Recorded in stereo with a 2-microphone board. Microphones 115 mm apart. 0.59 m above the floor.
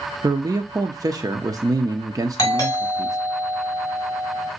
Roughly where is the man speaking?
Right.